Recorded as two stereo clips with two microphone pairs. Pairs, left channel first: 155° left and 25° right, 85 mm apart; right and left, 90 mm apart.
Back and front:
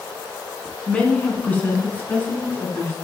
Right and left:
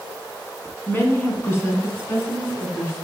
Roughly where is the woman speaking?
Behind right.